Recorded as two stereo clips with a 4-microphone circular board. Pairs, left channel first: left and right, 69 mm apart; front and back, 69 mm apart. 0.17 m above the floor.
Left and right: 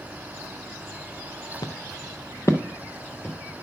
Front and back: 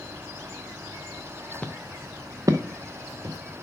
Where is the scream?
No scream in this recording.